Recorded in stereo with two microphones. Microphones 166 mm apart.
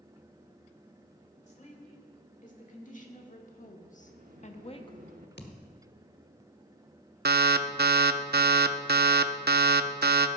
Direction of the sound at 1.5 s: 50° left (ahead or behind).